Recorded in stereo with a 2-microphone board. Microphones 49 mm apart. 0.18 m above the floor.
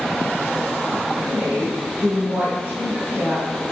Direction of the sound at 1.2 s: 35° right (ahead or behind).